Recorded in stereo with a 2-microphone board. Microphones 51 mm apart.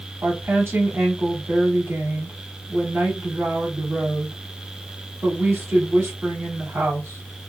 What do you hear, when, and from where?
0.2 s a woman speaking: 50° right (ahead or behind), 2 m